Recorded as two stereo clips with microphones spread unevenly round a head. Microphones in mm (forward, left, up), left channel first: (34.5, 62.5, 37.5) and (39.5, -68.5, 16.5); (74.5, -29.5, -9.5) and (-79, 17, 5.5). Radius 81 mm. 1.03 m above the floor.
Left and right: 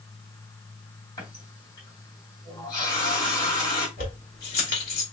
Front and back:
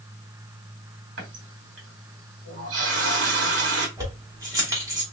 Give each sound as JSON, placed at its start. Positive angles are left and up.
{"t": 1.2, "sound": "a running tap", "azimuth_deg": 155, "distance_m": 2.5}
{"t": 4.0, "sound": "keys jangling", "azimuth_deg": 95, "distance_m": 2.5}